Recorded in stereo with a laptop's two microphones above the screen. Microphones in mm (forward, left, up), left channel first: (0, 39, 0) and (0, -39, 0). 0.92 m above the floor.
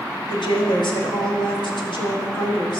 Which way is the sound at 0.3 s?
75° left (ahead or behind).